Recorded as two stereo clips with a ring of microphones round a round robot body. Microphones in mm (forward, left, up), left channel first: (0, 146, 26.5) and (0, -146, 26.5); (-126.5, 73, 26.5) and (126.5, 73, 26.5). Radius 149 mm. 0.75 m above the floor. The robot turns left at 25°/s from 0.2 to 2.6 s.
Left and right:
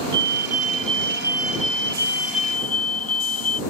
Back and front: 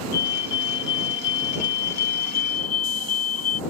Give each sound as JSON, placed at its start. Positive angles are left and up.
{"t": 0.1, "sound": "a fire alarm", "azimuth_deg": -145}